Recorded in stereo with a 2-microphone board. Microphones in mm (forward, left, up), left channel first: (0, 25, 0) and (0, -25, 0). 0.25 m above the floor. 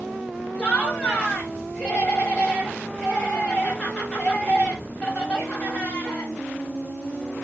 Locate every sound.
0.6 s laughter: 20° left (ahead or behind), 1.0 m